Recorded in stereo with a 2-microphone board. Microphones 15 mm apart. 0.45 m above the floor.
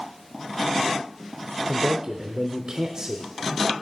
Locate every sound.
1.7 s a man speaking: 40° right (ahead or behind), 1.1 m